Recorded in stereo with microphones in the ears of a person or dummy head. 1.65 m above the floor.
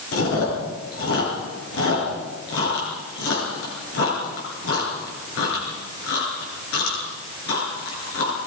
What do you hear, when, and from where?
0.1 s chewing: 80° left, 9.5 m